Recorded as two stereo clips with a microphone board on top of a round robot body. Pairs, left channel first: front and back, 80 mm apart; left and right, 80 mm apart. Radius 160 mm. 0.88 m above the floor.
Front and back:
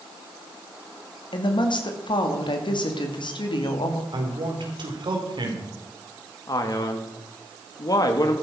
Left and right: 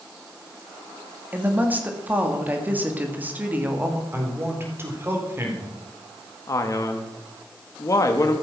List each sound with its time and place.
1.3 s a woman speaking: 20° right, 2.5 m
4.1 s a man speaking: 150° right, 4 m
6.5 s a man speaking: 40° left, 2 m